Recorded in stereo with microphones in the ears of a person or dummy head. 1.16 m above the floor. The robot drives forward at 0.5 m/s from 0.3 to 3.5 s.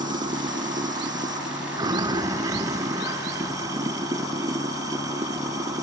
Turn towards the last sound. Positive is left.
turn(degrees=-20)  # may be behind; listen again after turning